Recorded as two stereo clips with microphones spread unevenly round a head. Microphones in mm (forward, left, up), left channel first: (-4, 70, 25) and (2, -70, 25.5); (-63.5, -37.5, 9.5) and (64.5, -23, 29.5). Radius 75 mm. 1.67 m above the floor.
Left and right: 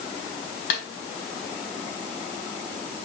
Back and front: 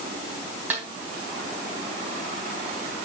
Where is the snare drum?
90° left, 3.5 m.